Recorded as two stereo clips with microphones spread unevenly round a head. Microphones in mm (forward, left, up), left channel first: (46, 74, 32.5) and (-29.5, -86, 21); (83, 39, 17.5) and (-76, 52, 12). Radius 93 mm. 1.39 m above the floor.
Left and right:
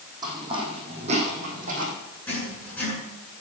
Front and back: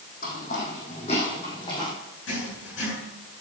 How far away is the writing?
About 7.5 m.